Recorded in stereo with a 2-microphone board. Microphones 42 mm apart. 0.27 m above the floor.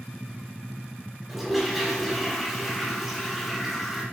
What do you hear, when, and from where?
1.3 s a toilet flushing: 5° right (ahead or behind), 3 m